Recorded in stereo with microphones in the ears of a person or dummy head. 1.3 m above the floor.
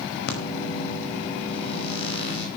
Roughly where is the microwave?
Left.